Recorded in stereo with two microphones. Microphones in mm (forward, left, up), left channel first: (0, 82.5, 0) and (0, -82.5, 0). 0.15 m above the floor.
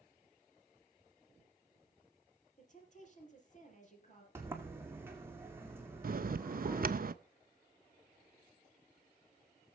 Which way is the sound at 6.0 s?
60° right (ahead or behind).